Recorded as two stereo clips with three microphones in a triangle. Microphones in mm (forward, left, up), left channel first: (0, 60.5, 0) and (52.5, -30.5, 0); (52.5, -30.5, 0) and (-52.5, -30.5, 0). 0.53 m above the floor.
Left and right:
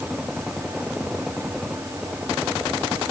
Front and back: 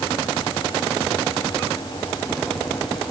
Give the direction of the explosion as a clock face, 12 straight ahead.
No explosion in this recording.